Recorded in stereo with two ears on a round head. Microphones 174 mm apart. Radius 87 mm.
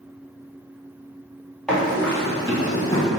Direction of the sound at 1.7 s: 5° left (ahead or behind).